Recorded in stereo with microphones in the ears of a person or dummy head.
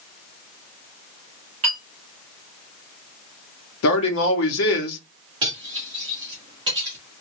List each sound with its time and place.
1.6 s a clink: 30° right (ahead or behind), 2 m
3.8 s a man speaking: 75° left (ahead or behind), 0.9 m
5.4 s cutlery clinking: 25° right (ahead or behind), 1.6 m